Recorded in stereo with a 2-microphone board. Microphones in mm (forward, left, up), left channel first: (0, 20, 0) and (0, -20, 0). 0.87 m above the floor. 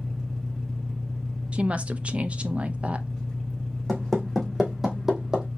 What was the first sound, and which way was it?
An engine running, 5° left (ahead or behind).